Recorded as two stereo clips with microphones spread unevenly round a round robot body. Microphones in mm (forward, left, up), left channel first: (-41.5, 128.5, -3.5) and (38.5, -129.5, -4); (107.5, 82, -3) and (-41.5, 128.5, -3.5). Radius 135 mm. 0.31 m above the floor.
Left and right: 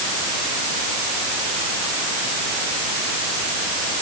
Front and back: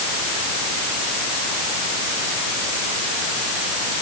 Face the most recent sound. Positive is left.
No sound to turn to.